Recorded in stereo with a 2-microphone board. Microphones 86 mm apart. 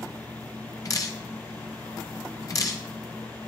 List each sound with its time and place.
0.8 s dripping: 40° left (ahead or behind), 1.4 m